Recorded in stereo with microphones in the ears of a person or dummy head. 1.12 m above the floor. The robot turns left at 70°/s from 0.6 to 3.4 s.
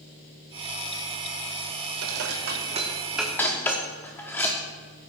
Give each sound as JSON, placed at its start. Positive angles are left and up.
{"t": 2.0, "sound": "dishes clattering", "side_deg": -80, "distance_m": 1.4}